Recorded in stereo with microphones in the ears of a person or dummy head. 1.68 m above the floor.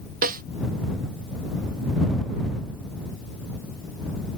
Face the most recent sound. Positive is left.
turn(degrees=-55)  # may be behind; listen again after turning